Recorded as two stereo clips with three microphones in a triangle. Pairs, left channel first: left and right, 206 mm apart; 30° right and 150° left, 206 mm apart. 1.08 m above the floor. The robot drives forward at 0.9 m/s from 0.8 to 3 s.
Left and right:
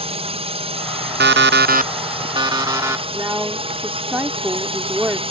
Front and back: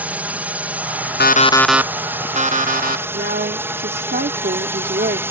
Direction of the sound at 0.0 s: 130° right.